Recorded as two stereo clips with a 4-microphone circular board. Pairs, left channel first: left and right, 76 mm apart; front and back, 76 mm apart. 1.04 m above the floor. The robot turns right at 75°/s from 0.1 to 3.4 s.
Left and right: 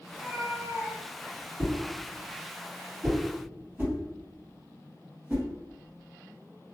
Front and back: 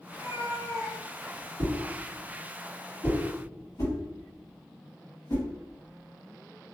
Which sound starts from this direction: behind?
A whoosh, at 1.6 s.